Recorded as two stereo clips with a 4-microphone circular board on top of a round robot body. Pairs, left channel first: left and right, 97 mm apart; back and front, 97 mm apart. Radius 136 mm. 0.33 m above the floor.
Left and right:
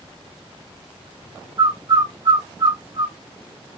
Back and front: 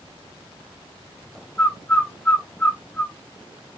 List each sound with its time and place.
1.6 s a bird: 110° right, 1.4 m